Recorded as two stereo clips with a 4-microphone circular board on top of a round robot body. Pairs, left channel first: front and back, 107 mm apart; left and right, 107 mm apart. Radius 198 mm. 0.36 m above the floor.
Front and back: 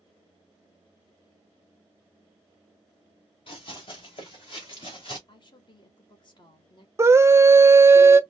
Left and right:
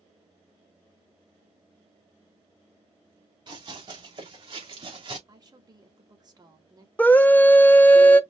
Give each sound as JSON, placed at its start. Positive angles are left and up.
{"t": 3.5, "sound": "running footsteps", "azimuth_deg": -40, "distance_m": 3.0}
{"t": 5.3, "sound": "a woman speaking", "azimuth_deg": -40, "distance_m": 2.0}
{"t": 7.0, "sound": "a scream", "azimuth_deg": 145, "distance_m": 0.9}